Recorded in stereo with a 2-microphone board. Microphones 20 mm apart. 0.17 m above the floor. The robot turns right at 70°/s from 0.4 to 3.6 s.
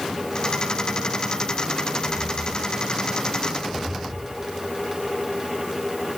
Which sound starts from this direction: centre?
Footsteps, at 2.0 s.